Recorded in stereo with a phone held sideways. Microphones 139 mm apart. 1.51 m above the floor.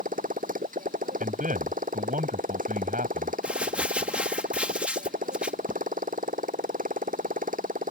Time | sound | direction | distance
0.0 | a motorcycle | 80° right | ?
1.2 | a man speaking | 80° right | ?
3.4 | crumpling | 10° right (ahead or behind) | ?